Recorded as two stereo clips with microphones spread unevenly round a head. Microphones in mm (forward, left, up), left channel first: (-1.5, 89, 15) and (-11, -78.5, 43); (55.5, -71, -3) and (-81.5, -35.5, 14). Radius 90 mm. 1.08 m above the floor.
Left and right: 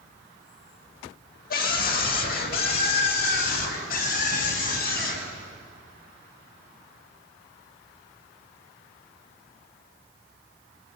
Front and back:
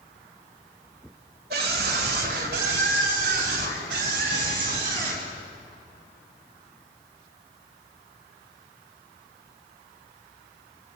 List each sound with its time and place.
1.5 s a scream: 120° left, 4.5 m; by 5.3 s 125° left, 8.5 m